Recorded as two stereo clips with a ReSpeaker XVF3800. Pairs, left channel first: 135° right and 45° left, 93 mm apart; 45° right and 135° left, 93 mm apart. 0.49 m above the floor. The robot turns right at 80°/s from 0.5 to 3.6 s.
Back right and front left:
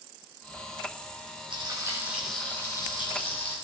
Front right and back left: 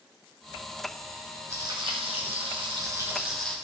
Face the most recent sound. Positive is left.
turn(degrees=-120)